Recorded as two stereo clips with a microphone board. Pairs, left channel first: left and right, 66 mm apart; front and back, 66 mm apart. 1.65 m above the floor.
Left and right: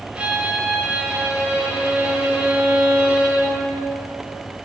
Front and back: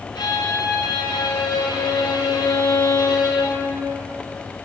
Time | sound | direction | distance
0.1 | a violin | 15° right | 0.8 m